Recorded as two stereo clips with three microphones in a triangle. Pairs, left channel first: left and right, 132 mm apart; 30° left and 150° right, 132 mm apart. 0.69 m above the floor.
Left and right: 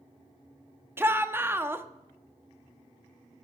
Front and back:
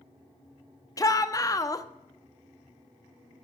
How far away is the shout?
About 0.7 m.